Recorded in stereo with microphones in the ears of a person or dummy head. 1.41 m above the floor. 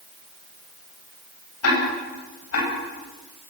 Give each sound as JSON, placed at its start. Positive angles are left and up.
{"t": 1.6, "sound": "ticking", "side_deg": 80, "distance_m": 9.5}